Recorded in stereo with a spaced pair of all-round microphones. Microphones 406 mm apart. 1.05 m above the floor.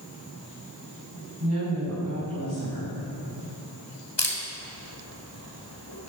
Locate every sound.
1.4 s a woman speaking: 45° right (ahead or behind), 5.5 m
4.2 s a camera shutter: 90° left, 3 m